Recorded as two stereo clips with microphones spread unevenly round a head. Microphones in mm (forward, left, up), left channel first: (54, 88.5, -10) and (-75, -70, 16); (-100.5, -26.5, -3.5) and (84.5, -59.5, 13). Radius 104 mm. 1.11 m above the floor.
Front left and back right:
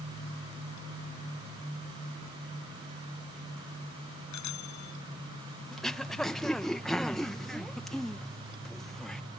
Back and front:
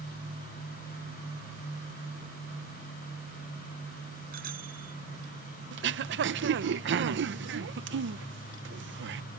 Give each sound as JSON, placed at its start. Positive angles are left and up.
{"t": 4.3, "sound": "a bicycle bell", "azimuth_deg": 45}
{"t": 5.7, "sound": "throat clearing", "azimuth_deg": -35}